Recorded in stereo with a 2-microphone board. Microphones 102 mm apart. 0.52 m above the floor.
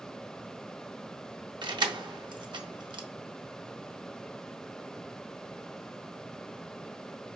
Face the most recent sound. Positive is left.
turn(degrees=-50)  # may be behind; listen again after turning